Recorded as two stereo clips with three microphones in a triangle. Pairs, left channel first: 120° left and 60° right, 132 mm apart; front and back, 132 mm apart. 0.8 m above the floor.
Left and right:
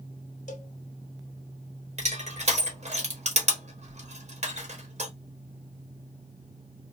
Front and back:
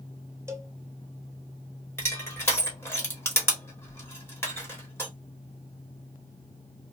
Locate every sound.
0.5 s a cowbell: 110° left, 0.7 m
2.0 s crushing: 70° right, 1.2 m